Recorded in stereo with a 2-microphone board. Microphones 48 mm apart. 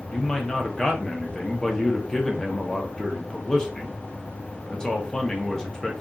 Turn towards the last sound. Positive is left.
turn(degrees=10)  # may be behind; listen again after turning